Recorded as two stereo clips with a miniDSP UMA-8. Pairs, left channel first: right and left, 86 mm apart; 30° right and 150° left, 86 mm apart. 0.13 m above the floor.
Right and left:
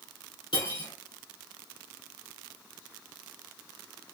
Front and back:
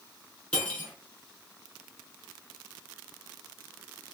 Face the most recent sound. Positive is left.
turn(degrees=-105)